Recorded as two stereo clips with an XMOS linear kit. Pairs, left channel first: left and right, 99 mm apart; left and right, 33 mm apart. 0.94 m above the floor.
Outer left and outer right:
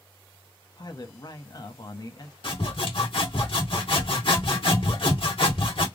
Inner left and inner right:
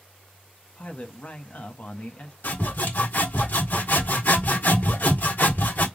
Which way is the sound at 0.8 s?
45° left (ahead or behind).